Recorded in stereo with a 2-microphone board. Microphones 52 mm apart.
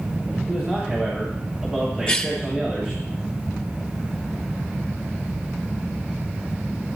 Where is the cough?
15° left (ahead or behind), 2 m.